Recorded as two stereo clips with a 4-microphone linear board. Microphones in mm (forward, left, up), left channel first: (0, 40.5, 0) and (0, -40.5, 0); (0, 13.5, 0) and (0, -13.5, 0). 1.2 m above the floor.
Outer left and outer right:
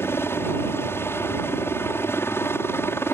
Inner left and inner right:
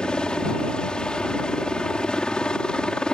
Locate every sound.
0.0 s a helicopter: 30° left (ahead or behind)